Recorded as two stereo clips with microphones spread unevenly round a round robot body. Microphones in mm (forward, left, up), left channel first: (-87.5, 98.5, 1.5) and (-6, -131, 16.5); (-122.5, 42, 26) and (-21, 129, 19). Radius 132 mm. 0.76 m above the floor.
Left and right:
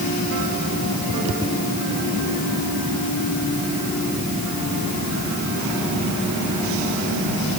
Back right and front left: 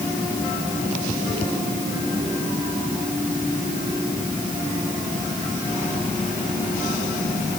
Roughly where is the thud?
No thud in this recording.